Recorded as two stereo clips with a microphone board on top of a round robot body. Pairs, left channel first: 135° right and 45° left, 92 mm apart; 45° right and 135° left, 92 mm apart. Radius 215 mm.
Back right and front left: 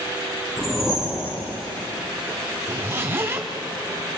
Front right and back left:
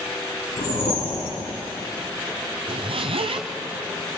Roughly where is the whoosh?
Ahead right.